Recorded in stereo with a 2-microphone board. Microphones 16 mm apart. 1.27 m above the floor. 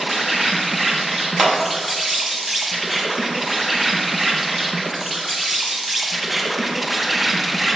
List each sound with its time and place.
0.0 s an insect: 10° right (ahead or behind), 1.4 m
1.4 s a clap: 10° right (ahead or behind), 2.0 m